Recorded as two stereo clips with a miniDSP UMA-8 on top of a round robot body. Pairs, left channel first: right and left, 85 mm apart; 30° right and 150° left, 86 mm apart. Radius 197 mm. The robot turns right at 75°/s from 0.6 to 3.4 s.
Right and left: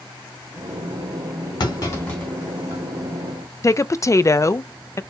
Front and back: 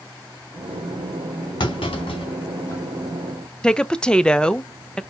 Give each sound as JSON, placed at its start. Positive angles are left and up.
{"t": 1.6, "sound": "a clunk", "azimuth_deg": -55, "distance_m": 2.5}
{"t": 3.6, "sound": "a woman speaking", "azimuth_deg": -105, "distance_m": 0.7}